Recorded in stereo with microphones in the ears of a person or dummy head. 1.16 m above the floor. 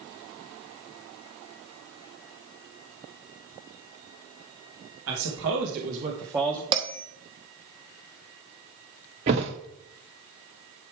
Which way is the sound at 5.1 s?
75° right (ahead or behind).